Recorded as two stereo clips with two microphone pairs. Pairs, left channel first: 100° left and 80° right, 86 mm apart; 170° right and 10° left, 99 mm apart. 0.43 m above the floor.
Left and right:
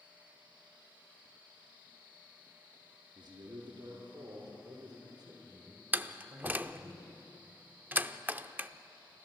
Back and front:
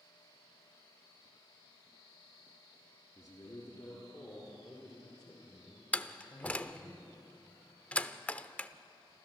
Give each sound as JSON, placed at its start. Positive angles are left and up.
{"t": 3.1, "sound": "a man speaking", "azimuth_deg": -115, "distance_m": 5.0}
{"t": 5.9, "sound": "a door slam", "azimuth_deg": -110, "distance_m": 0.5}